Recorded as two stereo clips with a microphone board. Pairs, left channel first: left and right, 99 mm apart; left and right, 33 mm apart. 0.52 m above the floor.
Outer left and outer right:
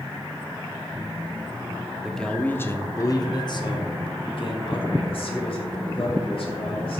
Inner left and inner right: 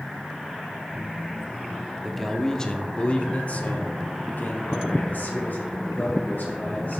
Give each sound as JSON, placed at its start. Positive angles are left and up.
{"t": 2.0, "sound": "a man speaking", "side_deg": 0, "distance_m": 0.8}